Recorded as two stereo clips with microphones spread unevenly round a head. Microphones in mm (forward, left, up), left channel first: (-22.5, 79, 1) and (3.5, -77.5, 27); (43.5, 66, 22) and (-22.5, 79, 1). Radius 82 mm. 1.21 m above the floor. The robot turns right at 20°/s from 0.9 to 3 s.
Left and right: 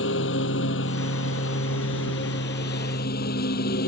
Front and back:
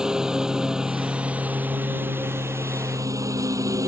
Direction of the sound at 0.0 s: 85° left.